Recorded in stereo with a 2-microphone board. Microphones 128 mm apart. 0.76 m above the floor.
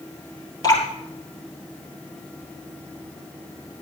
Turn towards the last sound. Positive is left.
turn(degrees=35)  # may be behind; listen again after turning